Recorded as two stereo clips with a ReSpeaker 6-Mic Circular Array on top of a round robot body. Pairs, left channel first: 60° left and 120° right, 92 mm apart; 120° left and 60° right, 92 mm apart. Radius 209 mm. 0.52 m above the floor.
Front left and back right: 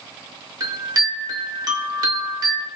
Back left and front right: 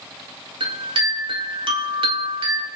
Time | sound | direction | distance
0.6 | a chime | 75° right | 5.5 m